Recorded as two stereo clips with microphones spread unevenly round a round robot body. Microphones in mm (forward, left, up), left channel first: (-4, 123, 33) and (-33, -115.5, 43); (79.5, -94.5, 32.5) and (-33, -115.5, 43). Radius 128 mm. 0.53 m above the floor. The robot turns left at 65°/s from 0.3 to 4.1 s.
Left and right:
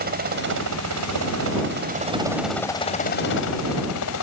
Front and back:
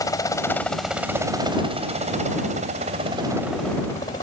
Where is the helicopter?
45° right; by 4.2 s 70° left.